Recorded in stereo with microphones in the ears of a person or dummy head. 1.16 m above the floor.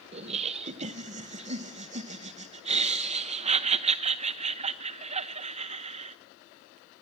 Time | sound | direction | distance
0.1 | laughter | 40° right (ahead or behind) | 0.8 m